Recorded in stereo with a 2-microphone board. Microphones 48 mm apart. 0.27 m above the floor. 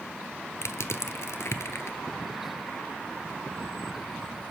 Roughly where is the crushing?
Left.